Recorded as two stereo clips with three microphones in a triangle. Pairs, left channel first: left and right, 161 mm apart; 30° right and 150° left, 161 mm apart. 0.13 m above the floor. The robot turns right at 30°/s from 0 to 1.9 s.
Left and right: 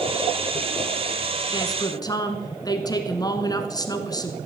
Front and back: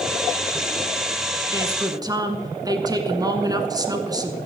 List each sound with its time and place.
1.5 s a woman speaking: 110° left, 1.3 m; by 4.4 s 120° left, 1.3 m